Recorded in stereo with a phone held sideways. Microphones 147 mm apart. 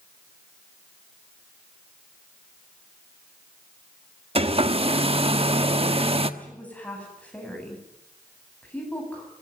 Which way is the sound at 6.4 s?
10° left (ahead or behind).